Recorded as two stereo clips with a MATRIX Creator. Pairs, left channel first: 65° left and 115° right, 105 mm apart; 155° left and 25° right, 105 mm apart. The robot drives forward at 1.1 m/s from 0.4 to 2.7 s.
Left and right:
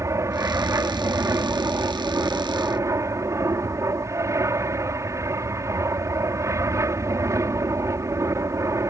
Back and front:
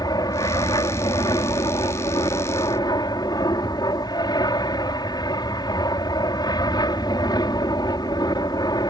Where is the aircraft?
165° right.